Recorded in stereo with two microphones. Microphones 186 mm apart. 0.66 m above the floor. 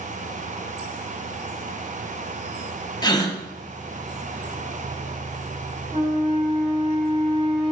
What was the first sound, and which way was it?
A gasp, 20° left (ahead or behind).